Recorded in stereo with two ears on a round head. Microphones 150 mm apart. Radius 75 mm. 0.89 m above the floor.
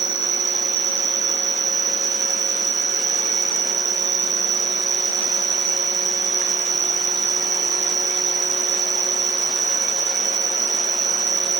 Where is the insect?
70° right (ahead or behind), 0.9 m.